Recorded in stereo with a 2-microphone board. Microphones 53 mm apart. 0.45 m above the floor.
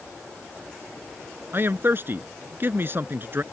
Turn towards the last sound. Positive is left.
turn(degrees=-45)  # may be behind; listen again after turning